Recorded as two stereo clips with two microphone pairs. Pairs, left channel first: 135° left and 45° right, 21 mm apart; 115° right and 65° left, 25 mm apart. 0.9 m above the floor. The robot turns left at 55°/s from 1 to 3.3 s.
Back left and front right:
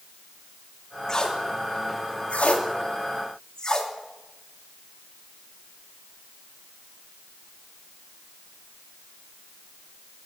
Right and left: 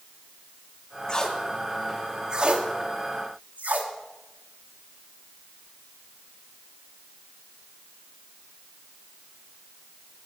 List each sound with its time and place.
1.1 s tape being pulled: 165° right, 1.8 m; by 3.9 s 70° left, 1.8 m